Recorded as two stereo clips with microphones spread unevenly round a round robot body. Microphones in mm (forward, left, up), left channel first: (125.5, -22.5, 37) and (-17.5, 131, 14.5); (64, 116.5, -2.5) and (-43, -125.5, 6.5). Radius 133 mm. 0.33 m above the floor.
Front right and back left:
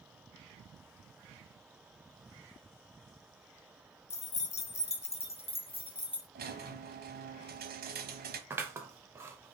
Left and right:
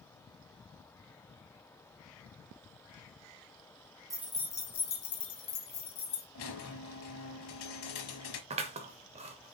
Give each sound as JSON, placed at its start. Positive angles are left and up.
{"t": 4.1, "sound": "keys jangling", "azimuth_deg": -50, "distance_m": 0.6}
{"t": 6.3, "sound": "a squeak", "azimuth_deg": 95, "distance_m": 0.9}
{"t": 8.5, "sound": "scissors", "azimuth_deg": -165, "distance_m": 0.6}